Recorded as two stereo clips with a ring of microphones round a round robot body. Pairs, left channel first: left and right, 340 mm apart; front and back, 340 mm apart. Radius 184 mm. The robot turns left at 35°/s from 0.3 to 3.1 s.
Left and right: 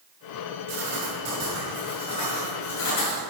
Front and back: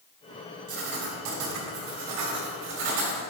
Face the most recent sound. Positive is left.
turn(degrees=130)